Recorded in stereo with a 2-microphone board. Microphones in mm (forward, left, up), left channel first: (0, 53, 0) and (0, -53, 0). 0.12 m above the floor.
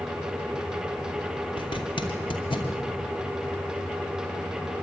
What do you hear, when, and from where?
1.6 s a zipper: 50° left (ahead or behind), 2.5 m